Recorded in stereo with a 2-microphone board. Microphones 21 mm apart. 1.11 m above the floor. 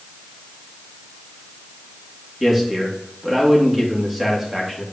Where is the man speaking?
15° right (ahead or behind), 2.5 m.